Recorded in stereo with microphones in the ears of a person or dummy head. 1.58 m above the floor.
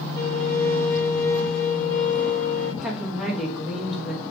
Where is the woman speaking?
Centre (ahead or behind), 1.0 m.